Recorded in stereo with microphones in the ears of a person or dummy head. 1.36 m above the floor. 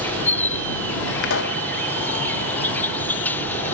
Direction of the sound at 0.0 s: 10° left (ahead or behind).